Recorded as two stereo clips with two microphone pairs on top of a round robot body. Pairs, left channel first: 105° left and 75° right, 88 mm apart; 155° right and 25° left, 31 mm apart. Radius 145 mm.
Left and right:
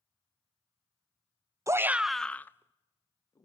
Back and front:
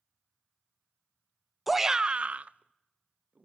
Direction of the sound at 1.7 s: 60° right.